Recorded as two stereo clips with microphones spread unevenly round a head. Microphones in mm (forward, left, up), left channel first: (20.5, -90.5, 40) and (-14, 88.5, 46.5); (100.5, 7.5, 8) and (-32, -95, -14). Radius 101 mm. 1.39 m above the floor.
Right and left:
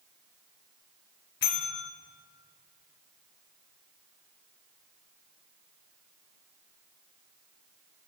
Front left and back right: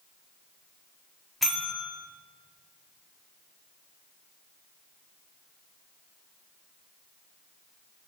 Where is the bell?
50° right, 2.5 m.